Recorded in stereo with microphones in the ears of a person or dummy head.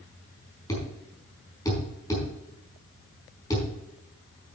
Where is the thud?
15° left (ahead or behind), 4.5 m.